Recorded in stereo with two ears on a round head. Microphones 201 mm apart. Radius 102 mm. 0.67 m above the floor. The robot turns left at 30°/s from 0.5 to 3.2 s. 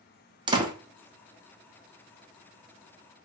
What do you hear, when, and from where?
0.5 s a door slam: 20° right (ahead or behind), 0.6 m